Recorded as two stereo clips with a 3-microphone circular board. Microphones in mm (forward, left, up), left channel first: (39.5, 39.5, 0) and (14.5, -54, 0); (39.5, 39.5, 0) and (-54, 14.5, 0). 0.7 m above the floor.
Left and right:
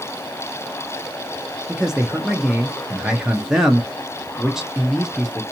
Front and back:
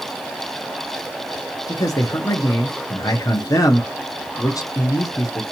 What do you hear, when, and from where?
1.7 s a man speaking: 25° right, 0.8 m